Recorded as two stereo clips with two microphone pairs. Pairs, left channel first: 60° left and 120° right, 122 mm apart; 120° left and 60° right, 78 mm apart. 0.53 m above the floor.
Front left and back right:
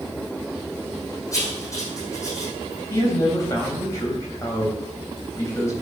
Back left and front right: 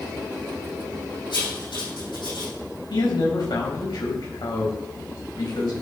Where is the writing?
120° left, 4.5 m.